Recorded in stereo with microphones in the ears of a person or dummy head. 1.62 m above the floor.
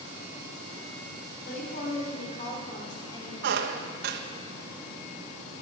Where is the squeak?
65° right (ahead or behind), 1.3 m.